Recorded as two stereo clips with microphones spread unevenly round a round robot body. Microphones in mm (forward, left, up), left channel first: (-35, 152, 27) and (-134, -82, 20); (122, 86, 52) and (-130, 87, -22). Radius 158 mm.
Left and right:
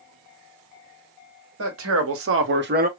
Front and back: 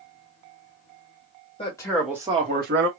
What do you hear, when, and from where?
1.6 s a man speaking: 80° right, 1.5 m; by 2.9 s 165° right, 1.3 m